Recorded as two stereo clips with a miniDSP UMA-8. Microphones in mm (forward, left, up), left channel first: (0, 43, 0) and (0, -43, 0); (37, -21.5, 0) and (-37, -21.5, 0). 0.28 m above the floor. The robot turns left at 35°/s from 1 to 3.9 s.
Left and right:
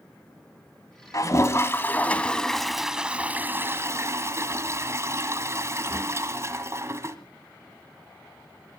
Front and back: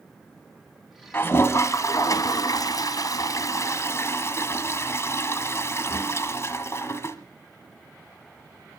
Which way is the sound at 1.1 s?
55° left.